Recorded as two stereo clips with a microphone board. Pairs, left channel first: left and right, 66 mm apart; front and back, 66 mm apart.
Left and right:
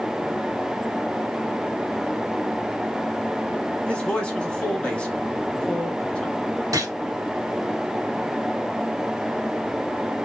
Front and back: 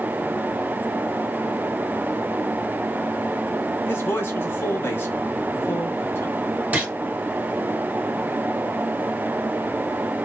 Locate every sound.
3.9 s a man speaking: 25° left, 1.2 m
6.7 s a gunshot: 115° right, 1.4 m